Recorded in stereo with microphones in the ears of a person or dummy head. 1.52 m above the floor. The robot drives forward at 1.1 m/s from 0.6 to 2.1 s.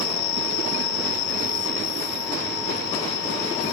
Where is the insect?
85° left; by 3.7 s 65° left (ahead or behind).